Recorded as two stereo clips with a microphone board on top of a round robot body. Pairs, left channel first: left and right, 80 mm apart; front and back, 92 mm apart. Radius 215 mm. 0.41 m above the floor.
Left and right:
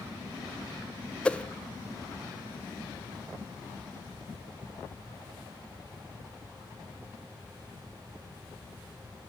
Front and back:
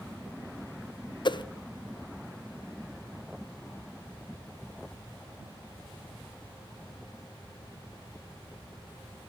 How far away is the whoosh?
About 0.6 m.